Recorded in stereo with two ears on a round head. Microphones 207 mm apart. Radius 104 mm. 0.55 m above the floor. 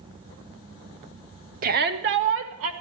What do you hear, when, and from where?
1.6 s a shout: 35° right (ahead or behind), 0.9 m; by 2.7 s 65° right (ahead or behind), 1.6 m